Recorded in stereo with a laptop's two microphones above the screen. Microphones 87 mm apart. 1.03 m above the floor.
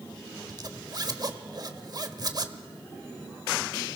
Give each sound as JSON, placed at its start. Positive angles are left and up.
{"t": 0.5, "sound": "a zipper", "side_deg": -45, "distance_m": 1.1}